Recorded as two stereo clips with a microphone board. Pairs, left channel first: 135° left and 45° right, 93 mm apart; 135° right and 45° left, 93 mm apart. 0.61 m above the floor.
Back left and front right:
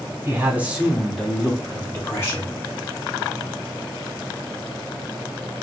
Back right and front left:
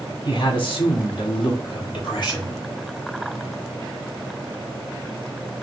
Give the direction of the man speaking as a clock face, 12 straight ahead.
4 o'clock.